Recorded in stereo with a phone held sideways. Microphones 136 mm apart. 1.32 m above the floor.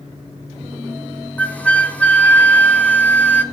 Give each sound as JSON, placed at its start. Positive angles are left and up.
{"t": 1.4, "sound": "a flute", "side_deg": 10, "distance_m": 1.0}